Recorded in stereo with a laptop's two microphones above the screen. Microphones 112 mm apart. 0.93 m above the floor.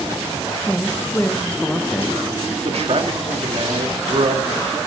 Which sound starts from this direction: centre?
A man speaking, at 0.7 s.